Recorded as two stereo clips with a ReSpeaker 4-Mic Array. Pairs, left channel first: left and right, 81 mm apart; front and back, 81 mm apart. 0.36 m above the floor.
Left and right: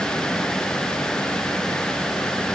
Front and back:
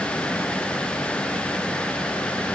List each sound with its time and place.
Only background noise.